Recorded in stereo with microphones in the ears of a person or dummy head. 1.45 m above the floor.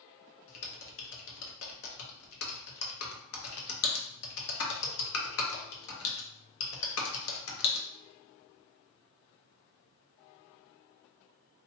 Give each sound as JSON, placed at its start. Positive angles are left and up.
{"t": 0.5, "sound": "typing on a keyboard", "side_deg": 65, "distance_m": 0.8}